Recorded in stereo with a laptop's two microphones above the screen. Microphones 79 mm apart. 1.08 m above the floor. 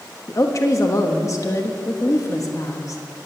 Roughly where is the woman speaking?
Left.